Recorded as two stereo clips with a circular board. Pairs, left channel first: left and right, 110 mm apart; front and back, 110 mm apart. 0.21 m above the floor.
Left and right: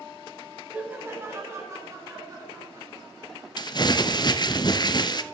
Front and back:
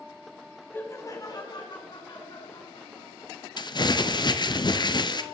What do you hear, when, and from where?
0.7 s laughter: 30° right, 1.0 m; by 4.4 s 35° right, 5 m
3.6 s crumpling: 45° left, 0.6 m